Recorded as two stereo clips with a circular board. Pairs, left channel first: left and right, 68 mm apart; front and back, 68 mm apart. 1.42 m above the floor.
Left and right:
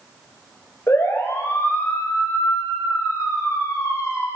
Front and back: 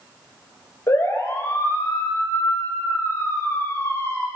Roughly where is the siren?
Ahead left.